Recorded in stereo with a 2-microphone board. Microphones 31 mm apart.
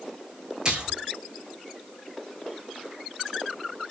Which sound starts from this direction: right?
A splash, at 0.7 s.